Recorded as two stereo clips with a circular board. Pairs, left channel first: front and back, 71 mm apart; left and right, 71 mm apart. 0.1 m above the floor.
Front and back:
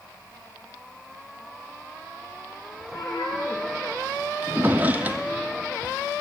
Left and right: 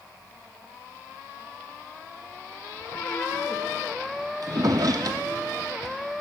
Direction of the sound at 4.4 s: 115° right.